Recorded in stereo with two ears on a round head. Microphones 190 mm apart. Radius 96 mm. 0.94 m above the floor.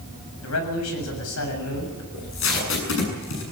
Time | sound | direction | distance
0.4 | a man speaking | 80° left | 7 m
2.1 | tape being pulled | 70° left (ahead or behind) | 7.5 m